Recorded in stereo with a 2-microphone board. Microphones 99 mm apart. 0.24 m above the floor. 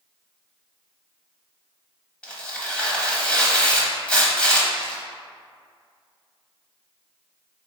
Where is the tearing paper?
10° left (ahead or behind), 0.7 m.